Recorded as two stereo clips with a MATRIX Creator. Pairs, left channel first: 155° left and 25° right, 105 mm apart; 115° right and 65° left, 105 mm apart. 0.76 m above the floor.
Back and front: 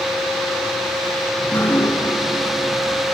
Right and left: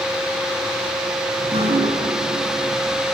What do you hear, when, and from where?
1.4 s dripping: 85° left, 5 m